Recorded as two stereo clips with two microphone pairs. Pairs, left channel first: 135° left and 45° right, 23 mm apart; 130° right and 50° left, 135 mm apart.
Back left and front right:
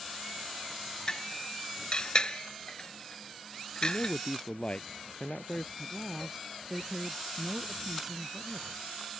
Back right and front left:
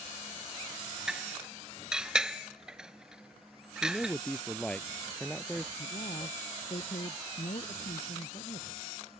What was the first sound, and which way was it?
Dishes clattering, 135° left.